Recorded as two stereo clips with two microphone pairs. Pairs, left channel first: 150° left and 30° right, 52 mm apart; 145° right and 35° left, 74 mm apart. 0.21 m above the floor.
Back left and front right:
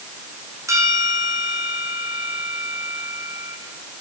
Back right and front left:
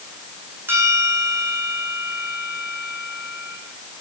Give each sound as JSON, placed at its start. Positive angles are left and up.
{"t": 0.7, "sound": "a bell", "azimuth_deg": -25, "distance_m": 3.5}